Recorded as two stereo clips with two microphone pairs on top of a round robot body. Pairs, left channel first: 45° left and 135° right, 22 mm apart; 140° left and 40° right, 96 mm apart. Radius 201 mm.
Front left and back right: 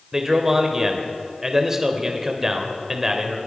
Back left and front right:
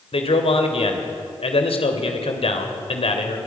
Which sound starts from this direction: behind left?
A man speaking, at 0.1 s.